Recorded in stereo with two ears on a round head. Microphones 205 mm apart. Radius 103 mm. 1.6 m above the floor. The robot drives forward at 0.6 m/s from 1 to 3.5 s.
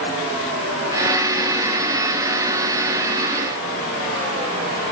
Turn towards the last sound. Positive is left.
No sound to turn to.